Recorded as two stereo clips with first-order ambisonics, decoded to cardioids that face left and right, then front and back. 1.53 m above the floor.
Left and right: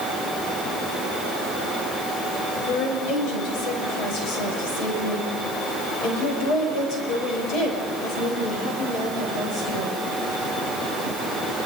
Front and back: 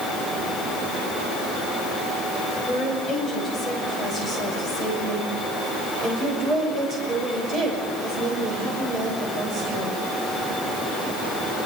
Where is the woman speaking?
95° left, 9.5 m; by 10.0 s 145° left, 8.5 m.